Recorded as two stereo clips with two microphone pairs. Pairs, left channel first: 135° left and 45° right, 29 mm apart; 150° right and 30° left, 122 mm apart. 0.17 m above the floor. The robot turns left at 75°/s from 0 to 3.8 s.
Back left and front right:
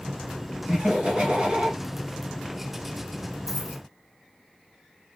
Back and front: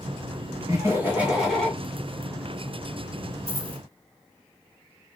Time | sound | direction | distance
0.7 | laughter | straight ahead | 1.6 m
3.5 | a dropped coin | 70° left | 0.9 m